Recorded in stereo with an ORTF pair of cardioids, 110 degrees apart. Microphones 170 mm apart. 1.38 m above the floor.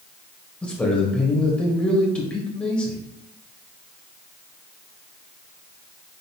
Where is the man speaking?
5° left, 1.8 m.